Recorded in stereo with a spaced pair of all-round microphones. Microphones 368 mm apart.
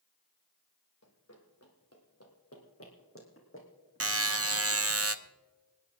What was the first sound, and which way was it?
Running footsteps, 45° left (ahead or behind).